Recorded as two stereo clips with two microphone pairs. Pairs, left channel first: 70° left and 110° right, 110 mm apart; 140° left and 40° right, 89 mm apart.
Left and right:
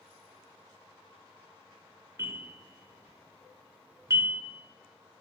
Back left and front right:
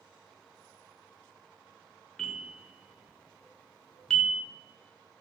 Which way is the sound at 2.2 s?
145° right.